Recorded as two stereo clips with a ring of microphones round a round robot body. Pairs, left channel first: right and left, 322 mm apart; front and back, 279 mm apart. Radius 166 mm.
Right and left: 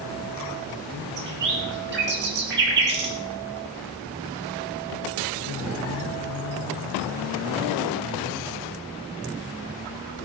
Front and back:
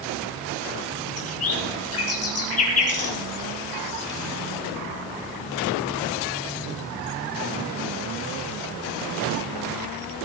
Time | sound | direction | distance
1.2 | a bird | 30° left | 3.5 m